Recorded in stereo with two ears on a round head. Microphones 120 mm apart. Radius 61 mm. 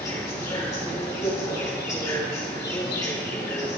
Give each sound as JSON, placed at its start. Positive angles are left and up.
{"t": 0.0, "sound": "an insect", "side_deg": 25, "distance_m": 7.0}